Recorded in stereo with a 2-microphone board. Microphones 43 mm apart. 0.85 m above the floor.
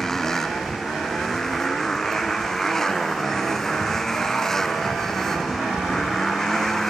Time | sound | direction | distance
0.0 | a motorcycle | 10° left (ahead or behind) | ?